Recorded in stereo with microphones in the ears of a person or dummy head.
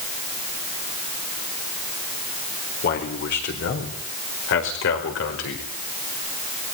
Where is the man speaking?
55° left (ahead or behind), 4.5 m; by 5.7 s 75° left (ahead or behind), 5 m.